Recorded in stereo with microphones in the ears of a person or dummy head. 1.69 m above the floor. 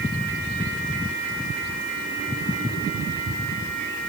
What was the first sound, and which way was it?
Only background noise.